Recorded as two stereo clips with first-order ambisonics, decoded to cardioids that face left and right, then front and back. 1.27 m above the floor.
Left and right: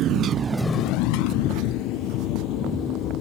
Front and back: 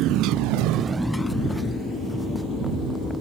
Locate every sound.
0.0 s a motorcycle: 140° right; by 3.2 s 65° left